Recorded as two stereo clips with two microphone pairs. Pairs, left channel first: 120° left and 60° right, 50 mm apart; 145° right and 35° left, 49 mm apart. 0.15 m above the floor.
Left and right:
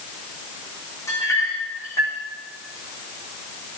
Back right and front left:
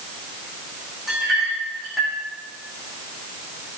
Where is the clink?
125° left, 6.5 m.